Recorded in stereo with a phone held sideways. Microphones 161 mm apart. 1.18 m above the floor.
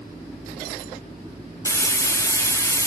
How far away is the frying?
About 0.6 m.